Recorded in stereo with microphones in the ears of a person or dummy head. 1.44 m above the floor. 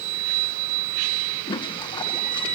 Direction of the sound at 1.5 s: 20° left (ahead or behind).